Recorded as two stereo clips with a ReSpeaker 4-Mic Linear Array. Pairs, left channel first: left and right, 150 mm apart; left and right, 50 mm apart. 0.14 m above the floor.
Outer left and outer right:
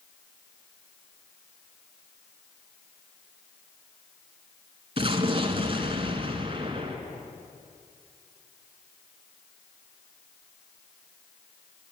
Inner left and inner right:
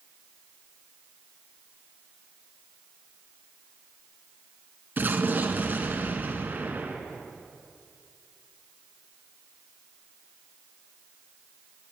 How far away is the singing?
No singing in this recording.